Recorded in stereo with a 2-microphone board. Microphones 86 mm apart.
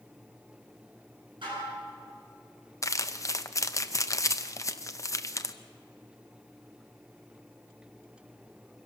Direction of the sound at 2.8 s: 35° left (ahead or behind).